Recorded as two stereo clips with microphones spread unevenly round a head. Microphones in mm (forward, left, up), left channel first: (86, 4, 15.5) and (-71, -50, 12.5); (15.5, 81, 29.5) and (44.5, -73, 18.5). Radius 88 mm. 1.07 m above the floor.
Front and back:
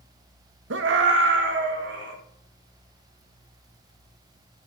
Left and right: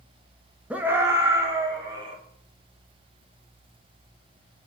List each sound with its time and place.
0.7 s a scream: 160° right, 1.0 m; by 2.1 s 145° right, 3 m